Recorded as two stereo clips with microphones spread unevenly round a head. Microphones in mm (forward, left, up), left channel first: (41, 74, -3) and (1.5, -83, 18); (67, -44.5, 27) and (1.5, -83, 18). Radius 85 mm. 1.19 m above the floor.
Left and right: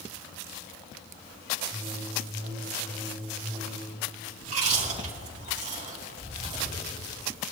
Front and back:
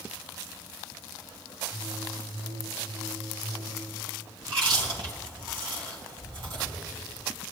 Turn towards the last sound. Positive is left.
turn(degrees=-150)